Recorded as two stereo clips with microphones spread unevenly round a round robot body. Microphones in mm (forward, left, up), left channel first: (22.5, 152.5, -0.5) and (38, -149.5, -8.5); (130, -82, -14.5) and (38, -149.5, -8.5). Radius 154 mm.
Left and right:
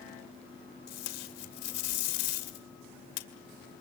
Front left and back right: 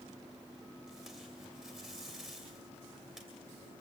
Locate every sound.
0.9 s tape being pulled: 125° left, 2 m